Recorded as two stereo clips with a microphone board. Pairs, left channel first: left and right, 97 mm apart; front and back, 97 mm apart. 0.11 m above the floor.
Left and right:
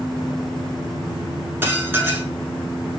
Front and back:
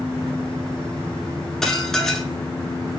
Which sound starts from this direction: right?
Dishes clattering, at 1.6 s.